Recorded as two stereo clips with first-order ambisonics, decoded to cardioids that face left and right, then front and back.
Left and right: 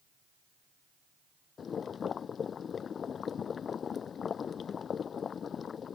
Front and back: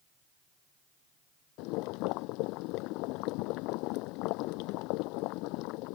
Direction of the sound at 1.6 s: 25° left.